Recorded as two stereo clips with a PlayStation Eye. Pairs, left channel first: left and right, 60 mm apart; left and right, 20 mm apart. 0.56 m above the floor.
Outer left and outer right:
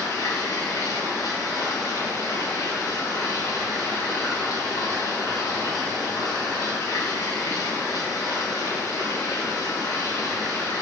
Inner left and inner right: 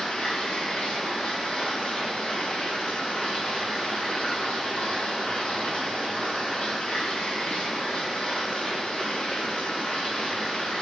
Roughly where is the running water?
Left.